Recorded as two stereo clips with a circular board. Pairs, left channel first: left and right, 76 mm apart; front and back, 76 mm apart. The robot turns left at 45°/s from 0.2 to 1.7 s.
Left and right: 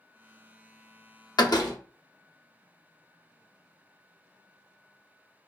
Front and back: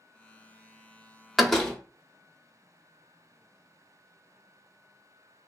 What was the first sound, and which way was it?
A door slam, 95° left.